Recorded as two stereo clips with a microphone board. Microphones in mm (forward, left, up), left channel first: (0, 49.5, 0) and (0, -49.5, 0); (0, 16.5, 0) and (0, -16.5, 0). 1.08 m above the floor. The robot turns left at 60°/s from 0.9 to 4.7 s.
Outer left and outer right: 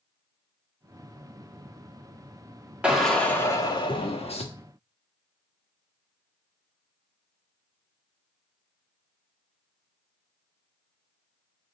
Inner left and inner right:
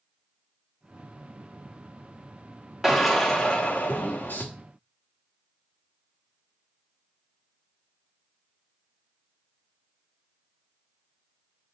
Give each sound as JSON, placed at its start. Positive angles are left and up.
{"t": 2.8, "sound": "a drill", "azimuth_deg": -170, "distance_m": 1.3}